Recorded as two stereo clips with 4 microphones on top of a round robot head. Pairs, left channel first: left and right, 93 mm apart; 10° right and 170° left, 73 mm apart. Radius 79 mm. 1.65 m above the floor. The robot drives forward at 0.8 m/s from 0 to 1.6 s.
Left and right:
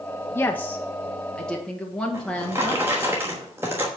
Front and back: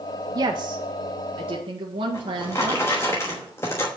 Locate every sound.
0.3 s a woman speaking: 150° left, 0.5 m; by 2.8 s 175° left, 1.4 m
2.1 s a drawer: 40° right, 1.0 m